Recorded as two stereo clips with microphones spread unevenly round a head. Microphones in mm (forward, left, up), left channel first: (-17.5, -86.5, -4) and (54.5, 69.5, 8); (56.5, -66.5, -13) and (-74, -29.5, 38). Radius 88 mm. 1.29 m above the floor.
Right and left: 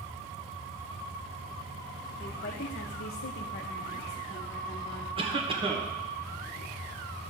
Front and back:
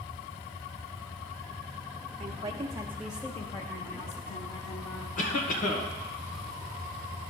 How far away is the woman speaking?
About 1.1 m.